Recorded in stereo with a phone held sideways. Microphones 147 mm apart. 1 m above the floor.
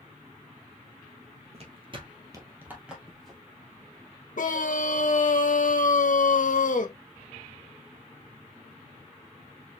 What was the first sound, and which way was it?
Footsteps, 45° right (ahead or behind).